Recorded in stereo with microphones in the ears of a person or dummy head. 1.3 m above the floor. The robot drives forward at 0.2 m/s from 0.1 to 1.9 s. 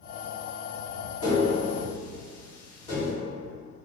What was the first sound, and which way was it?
Tapping, 40° left (ahead or behind).